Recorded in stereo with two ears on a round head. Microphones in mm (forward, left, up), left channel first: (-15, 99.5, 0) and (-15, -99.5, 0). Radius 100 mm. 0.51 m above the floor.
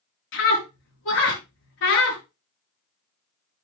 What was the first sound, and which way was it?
A scream, 60° left (ahead or behind).